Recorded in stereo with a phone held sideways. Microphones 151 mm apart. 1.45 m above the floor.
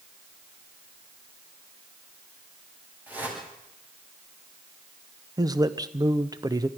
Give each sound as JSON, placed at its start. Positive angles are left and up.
{"t": 3.1, "sound": "a whoosh", "side_deg": -10, "distance_m": 8.5}
{"t": 5.4, "sound": "a man speaking", "side_deg": -25, "distance_m": 1.0}